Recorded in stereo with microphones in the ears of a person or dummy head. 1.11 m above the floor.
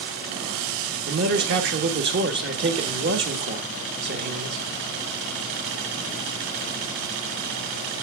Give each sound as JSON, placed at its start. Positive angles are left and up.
{"t": 1.1, "sound": "a man speaking", "side_deg": -60, "distance_m": 1.2}